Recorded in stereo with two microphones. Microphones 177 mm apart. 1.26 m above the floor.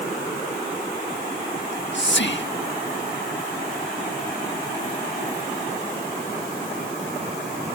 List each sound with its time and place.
1.6 s whispering: 75° left (ahead or behind)